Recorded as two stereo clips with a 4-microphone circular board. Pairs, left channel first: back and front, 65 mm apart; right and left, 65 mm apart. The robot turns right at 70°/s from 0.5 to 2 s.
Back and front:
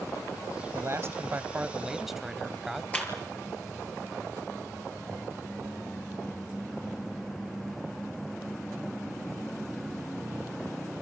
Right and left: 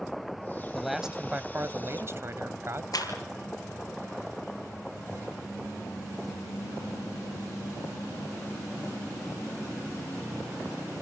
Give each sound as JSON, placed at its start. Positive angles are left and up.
{"t": 0.7, "sound": "a man speaking", "azimuth_deg": -5, "distance_m": 1.4}
{"t": 2.9, "sound": "a clap", "azimuth_deg": -110, "distance_m": 5.5}